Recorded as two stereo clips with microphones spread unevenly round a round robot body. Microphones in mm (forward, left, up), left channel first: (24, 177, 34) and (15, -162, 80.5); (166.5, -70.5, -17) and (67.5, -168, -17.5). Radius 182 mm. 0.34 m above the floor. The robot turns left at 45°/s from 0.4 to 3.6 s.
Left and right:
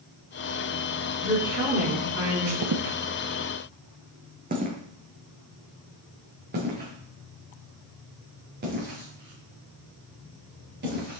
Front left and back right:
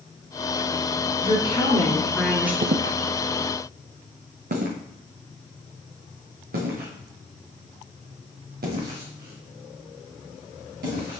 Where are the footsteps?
120° right, 0.6 m; by 11.2 s 155° right, 5.5 m.